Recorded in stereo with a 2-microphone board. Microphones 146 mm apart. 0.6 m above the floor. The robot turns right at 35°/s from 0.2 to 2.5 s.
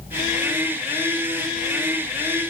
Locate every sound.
Only background noise.